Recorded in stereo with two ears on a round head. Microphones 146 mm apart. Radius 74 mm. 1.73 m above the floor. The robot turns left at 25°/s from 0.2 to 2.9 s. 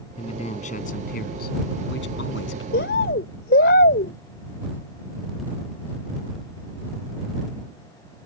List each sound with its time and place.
0.2 s a man speaking: 145° left; by 2.6 s 80° left
2.7 s a bird: 65° left (ahead or behind); by 4.1 s 60° left (ahead or behind)